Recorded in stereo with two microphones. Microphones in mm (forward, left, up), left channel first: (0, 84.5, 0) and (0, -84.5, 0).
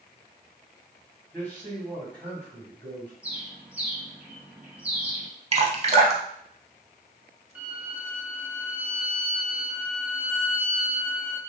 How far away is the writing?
I don't hear writing.